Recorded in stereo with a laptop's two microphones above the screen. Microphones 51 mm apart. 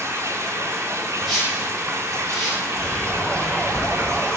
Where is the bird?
10° right (ahead or behind), 4 m.